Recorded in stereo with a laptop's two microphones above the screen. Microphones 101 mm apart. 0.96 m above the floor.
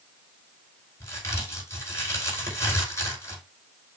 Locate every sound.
1.0 s a crack: 35° left (ahead or behind), 4.5 m